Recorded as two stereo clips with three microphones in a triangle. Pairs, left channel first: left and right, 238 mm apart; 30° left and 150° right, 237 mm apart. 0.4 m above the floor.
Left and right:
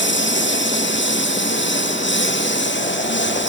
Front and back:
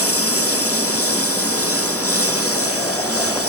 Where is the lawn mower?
50° left.